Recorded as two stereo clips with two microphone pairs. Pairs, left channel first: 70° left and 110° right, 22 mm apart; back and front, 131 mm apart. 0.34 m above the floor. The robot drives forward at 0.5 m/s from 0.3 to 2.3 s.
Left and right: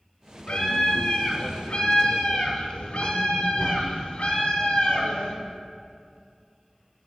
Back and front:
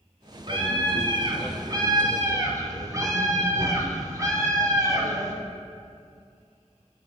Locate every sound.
0.5 s a scream: 45° left, 3 m; by 5.3 s 60° left, 2.5 m